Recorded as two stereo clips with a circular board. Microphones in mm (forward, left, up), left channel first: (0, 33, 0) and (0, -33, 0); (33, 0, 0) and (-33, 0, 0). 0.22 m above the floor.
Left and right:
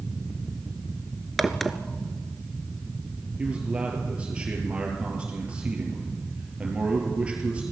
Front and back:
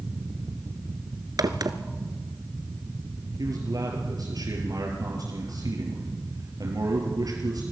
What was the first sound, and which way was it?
A crack, straight behind.